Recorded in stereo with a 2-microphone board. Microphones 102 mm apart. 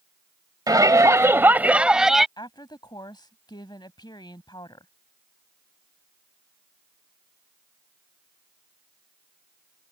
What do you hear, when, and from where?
0.7 s a shout: 40° right (ahead or behind); by 2.3 s centre (ahead or behind)
2.4 s a woman speaking: 45° left (ahead or behind)